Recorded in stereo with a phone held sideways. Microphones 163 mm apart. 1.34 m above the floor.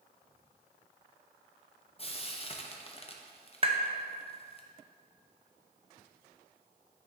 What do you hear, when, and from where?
2.0 s frying: 35° left (ahead or behind), 0.7 m
3.6 s tapping: 35° right (ahead or behind), 0.7 m